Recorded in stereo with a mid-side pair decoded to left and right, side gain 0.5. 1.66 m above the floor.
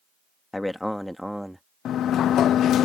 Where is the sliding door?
60° left.